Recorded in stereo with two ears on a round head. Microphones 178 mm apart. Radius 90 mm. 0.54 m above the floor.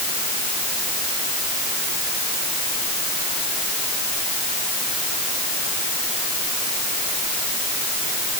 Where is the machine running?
I don't hear a machine running.